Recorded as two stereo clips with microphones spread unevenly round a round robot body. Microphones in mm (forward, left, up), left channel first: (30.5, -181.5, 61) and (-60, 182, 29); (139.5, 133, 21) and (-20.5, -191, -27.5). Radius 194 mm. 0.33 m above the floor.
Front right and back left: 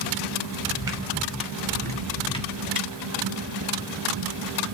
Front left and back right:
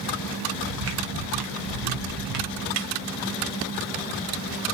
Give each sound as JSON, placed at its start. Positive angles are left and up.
{"t": 0.6, "sound": "footsteps", "azimuth_deg": -175, "distance_m": 3.0}
{"t": 2.8, "sound": "a snare drum", "azimuth_deg": -95, "distance_m": 0.9}